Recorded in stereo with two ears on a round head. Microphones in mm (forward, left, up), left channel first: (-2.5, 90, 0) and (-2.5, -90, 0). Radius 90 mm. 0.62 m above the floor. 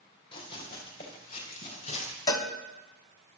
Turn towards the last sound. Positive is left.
turn(degrees=20)  # may be behind; listen again after turning